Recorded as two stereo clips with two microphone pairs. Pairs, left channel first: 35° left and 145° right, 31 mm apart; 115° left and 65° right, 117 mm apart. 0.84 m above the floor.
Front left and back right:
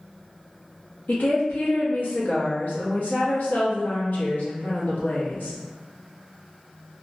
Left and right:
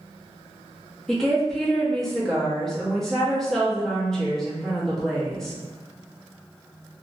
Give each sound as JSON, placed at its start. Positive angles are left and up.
{"t": 1.1, "sound": "a woman speaking", "azimuth_deg": 30, "distance_m": 0.8}